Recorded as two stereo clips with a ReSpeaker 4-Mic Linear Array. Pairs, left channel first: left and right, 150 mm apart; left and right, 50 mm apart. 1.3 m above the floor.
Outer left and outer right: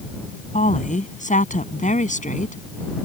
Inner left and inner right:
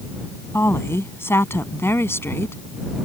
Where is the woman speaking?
55° left (ahead or behind).